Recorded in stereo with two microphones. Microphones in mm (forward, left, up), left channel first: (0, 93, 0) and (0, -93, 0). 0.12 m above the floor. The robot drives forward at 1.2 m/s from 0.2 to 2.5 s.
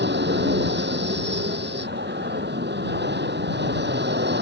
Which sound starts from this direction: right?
An aircraft, at 0.0 s.